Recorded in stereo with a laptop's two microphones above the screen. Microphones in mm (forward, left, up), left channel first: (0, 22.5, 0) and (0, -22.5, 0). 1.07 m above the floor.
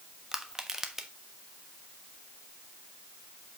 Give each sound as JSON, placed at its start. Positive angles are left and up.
{"t": 0.3, "sound": "crushing", "side_deg": -15, "distance_m": 1.1}